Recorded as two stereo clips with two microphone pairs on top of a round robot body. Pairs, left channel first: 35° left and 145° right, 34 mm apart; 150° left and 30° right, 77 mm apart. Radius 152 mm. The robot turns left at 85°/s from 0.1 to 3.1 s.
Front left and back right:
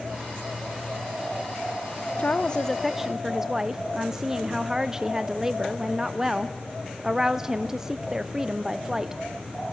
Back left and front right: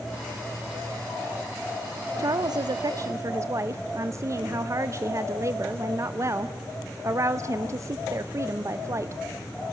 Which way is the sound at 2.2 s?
5° left.